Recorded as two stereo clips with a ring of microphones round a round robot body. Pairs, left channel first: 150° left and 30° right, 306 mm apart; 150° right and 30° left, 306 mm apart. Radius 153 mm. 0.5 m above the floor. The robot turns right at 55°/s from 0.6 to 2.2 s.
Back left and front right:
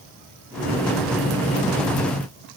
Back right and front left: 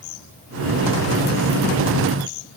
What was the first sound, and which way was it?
Only background noise.